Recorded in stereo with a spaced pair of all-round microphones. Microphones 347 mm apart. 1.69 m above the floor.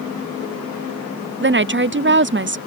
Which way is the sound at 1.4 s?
35° right (ahead or behind).